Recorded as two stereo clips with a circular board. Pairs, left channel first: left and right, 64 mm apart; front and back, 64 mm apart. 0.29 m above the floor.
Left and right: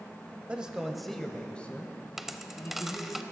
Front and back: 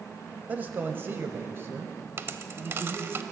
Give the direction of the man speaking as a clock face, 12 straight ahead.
5 o'clock.